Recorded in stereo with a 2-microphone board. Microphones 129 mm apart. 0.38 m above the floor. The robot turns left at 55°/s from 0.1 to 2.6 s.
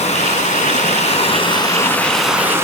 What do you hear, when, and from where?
0.0 s running water: 115° left, 1.9 m; by 2.6 s 20° right, 1.9 m